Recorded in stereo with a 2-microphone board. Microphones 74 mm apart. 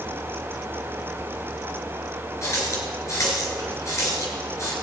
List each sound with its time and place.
2.4 s a running tap: 40° left (ahead or behind), 2.5 m